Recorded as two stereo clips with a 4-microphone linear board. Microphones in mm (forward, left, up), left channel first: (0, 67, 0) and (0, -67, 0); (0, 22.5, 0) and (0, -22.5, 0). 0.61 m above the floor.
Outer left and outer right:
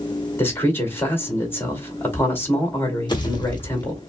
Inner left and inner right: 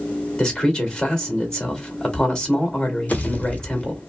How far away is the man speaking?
About 2 m.